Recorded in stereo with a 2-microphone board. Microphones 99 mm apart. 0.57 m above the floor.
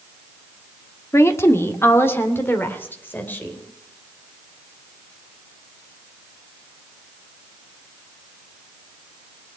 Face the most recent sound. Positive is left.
turn(degrees=20)  # may be behind; listen again after turning